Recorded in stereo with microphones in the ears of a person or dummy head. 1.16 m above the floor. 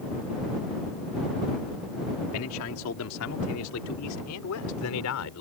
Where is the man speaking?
80° left.